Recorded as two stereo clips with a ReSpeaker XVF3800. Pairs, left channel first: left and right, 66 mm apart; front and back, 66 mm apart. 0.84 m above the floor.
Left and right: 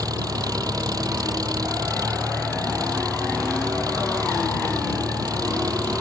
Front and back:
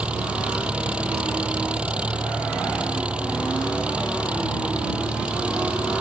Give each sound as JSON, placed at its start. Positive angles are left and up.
{"t": 0.0, "sound": "an engine running", "azimuth_deg": -105}